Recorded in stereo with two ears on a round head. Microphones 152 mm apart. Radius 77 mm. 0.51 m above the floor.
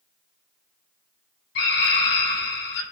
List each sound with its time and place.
1.6 s a scream: 70° left (ahead or behind), 3 m